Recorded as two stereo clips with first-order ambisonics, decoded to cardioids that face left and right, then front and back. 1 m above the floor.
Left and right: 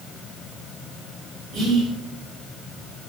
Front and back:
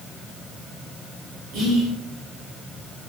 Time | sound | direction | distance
1.5 | whispering | 150° right | 1.4 m